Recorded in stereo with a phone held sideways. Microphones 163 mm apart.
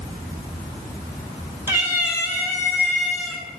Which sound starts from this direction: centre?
A cat meowing, at 1.7 s.